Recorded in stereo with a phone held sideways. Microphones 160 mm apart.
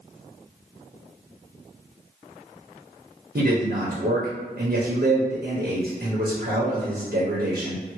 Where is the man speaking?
75° right (ahead or behind), 0.9 m.